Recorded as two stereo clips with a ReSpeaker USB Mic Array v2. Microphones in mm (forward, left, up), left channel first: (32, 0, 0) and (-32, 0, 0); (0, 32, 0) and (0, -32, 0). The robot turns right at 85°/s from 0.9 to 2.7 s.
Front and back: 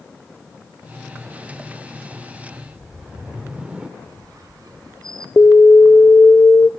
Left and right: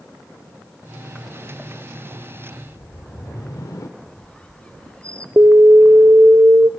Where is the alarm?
55° right, 0.6 m.